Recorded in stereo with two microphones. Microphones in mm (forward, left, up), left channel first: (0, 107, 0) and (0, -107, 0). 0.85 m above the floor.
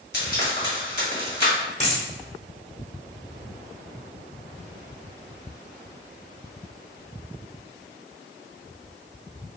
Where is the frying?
45° left (ahead or behind), 1.5 m.